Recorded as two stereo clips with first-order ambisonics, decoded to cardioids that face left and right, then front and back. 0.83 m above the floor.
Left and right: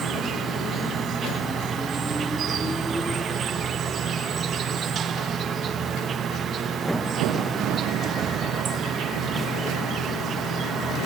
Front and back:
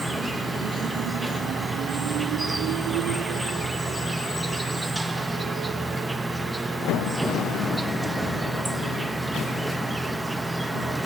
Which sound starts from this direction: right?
An insect, at 0.0 s.